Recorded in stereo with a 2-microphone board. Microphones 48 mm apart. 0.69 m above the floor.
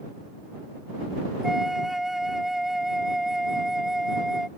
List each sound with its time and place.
1.4 s a flute: 5° right (ahead or behind)